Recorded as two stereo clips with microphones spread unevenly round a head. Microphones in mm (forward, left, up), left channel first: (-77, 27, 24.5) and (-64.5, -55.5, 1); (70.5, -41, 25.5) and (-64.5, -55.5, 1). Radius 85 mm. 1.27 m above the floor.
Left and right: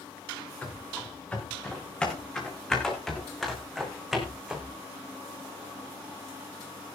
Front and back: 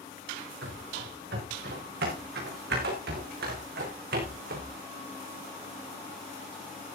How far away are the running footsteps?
About 7.5 m.